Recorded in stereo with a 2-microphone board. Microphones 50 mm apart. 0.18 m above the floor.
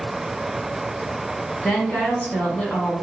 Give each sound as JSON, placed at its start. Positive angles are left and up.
{"t": 1.6, "sound": "a woman speaking", "side_deg": 25, "distance_m": 1.8}